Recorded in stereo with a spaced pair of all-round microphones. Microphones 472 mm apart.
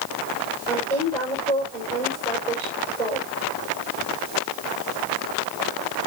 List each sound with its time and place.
0.7 s a woman speaking: 5° left (ahead or behind), 6 m